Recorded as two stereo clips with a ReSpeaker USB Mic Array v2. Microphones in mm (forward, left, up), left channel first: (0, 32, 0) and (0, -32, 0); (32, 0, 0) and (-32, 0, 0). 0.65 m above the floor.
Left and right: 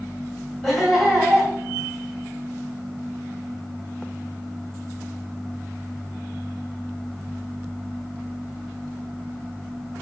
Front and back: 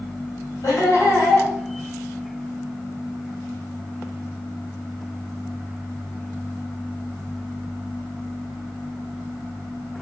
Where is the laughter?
Straight ahead, 1.8 m.